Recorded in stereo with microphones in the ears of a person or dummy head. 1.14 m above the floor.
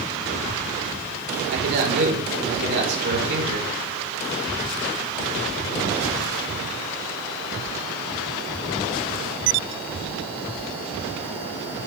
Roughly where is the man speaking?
Right.